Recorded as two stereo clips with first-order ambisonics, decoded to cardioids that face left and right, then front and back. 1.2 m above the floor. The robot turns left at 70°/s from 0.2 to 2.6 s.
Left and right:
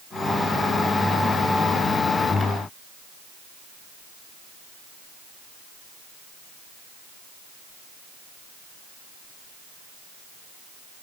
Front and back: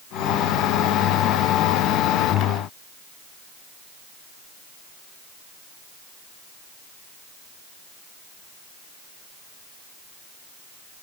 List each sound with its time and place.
Only background noise.